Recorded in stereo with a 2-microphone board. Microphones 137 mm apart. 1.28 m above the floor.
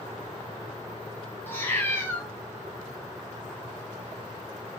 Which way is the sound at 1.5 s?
15° left (ahead or behind).